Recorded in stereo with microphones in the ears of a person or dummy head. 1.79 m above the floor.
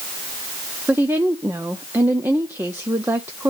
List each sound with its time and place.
0.9 s a woman speaking: 10° right (ahead or behind), 0.7 m